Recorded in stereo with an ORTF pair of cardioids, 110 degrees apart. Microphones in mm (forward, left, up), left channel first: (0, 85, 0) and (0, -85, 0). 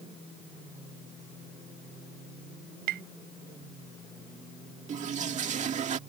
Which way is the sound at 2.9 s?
70° right.